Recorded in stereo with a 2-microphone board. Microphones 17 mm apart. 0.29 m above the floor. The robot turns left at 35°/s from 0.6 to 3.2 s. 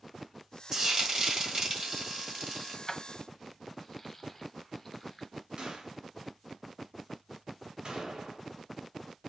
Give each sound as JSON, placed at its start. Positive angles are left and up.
{"t": 0.7, "sound": "frying", "azimuth_deg": -55, "distance_m": 1.6}
{"t": 2.9, "sound": "keys jangling", "side_deg": 20, "distance_m": 1.0}
{"t": 5.6, "sound": "a gunshot", "side_deg": -70, "distance_m": 2.5}